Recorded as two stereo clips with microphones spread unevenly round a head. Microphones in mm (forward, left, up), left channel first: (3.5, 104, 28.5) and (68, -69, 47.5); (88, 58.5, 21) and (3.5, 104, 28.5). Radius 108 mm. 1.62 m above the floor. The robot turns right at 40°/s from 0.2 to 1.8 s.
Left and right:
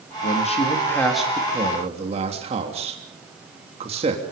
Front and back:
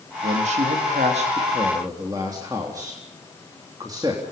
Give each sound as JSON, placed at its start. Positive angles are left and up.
{"t": 0.2, "sound": "a man speaking", "azimuth_deg": 165, "distance_m": 3.5}